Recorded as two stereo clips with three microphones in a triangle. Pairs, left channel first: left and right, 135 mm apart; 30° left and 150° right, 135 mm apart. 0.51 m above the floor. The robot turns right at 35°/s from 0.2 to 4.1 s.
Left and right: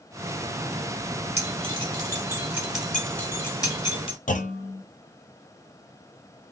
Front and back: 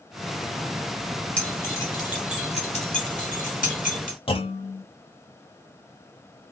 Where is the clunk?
75° left, 0.7 m.